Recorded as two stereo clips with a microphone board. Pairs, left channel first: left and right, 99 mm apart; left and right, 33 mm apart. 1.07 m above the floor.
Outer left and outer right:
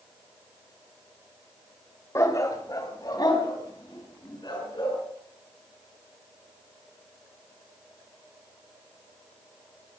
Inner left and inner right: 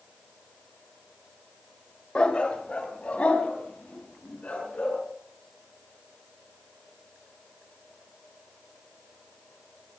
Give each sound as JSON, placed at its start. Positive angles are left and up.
{"t": 2.1, "sound": "a dog barking", "side_deg": 30, "distance_m": 1.7}